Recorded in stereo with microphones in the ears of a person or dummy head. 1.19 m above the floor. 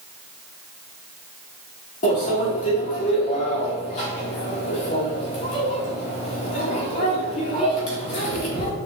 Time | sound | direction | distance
2.0 | a microwave | 40° left (ahead or behind) | 1.8 m